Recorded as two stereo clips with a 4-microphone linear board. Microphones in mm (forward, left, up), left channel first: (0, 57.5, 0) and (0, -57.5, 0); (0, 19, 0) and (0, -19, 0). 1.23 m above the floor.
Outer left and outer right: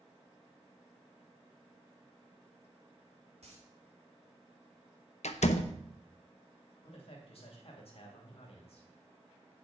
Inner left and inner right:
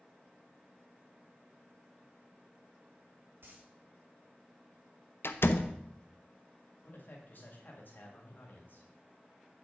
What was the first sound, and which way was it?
A dropped coin, 65° right (ahead or behind).